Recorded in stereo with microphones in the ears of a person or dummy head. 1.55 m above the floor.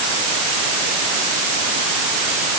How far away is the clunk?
I don't hear a clunk.